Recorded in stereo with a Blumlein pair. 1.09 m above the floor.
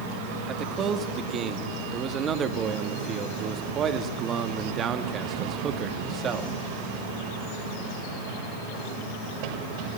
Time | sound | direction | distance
0.5 | a man speaking | 25° right | 1.7 m